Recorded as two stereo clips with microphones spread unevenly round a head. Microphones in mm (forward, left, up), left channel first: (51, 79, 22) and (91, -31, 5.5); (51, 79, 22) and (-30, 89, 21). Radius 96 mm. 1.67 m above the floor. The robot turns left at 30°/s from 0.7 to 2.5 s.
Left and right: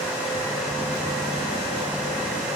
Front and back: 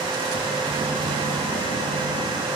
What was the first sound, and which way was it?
Only background noise.